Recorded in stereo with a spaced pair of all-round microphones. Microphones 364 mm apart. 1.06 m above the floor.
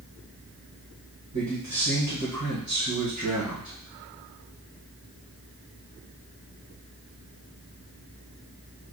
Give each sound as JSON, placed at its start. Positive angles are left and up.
{"t": 1.3, "sound": "a man speaking", "side_deg": -50, "distance_m": 1.2}